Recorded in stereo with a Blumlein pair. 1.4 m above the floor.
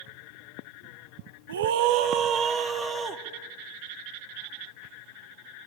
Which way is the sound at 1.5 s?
65° right.